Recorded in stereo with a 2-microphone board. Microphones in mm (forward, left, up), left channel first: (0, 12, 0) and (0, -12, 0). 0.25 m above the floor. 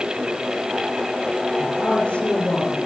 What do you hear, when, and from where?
1.6 s a woman speaking: 50° left (ahead or behind), 4.5 m